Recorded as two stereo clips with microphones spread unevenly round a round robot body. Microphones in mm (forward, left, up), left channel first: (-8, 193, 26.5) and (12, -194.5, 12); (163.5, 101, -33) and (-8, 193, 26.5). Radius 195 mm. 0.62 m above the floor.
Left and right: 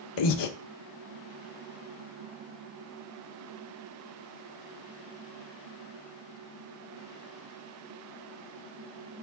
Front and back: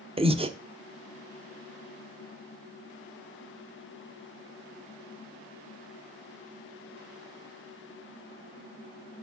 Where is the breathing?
80° left, 1.1 m.